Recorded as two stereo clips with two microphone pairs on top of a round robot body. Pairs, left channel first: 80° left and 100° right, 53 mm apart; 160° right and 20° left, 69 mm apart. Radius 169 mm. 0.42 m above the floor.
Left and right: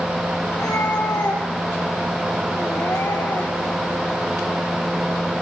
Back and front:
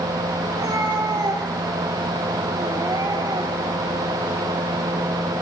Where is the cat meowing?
65° left, 8.5 m; by 3.8 s 55° left, 7.5 m.